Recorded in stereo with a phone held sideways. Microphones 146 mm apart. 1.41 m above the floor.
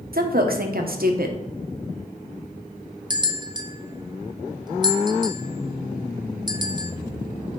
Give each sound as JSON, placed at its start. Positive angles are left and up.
{"t": 0.1, "sound": "a woman speaking", "side_deg": -70, "distance_m": 1.1}
{"t": 3.1, "sound": "a bell", "side_deg": -30, "distance_m": 0.6}